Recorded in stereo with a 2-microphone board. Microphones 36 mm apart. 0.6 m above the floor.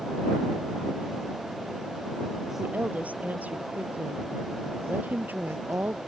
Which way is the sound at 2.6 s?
45° right (ahead or behind).